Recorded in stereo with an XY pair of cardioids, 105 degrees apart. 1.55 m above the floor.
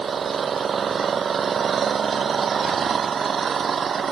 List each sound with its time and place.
0.0 s an engine running: 45° right